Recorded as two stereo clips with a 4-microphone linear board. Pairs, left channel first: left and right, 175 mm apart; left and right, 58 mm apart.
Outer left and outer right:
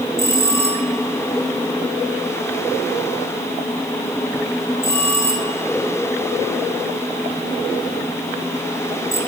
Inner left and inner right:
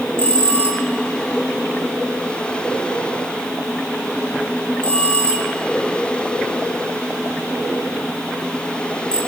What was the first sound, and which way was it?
A bell, 15° left (ahead or behind).